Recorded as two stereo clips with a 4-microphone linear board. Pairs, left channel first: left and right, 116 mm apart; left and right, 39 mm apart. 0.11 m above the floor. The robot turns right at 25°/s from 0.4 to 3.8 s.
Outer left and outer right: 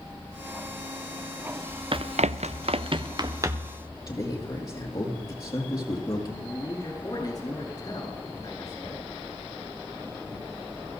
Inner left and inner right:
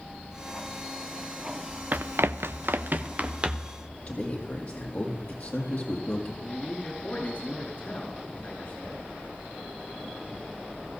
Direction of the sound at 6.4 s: 35° left (ahead or behind).